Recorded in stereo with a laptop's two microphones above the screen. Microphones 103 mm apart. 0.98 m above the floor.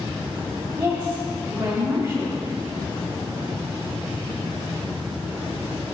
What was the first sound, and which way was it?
A woman speaking, 35° right (ahead or behind).